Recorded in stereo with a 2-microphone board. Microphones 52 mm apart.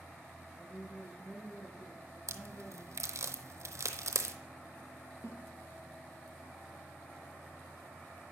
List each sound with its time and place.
0.6 s a woman speaking: 75° left (ahead or behind), 6 m
2.3 s a crack: 75° right (ahead or behind), 0.7 m
5.2 s a snare drum: 55° left (ahead or behind), 1.5 m